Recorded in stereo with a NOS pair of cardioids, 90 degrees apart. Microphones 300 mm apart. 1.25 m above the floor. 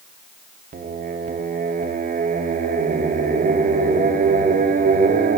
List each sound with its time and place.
0.7 s singing: 30° right, 0.6 m